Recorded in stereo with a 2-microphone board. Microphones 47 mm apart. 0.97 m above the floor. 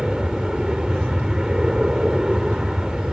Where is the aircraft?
10° right (ahead or behind).